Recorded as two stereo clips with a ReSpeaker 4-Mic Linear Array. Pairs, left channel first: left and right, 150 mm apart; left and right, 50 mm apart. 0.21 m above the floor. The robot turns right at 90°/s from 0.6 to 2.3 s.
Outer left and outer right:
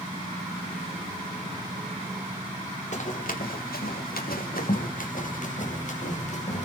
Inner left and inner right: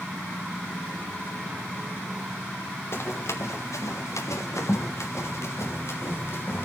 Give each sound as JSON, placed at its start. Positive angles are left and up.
{"t": 2.9, "sound": "running footsteps", "side_deg": 55, "distance_m": 2.0}